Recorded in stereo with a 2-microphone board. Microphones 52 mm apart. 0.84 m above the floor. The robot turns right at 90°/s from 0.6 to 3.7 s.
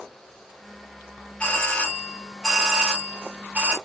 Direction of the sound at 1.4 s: 25° left (ahead or behind).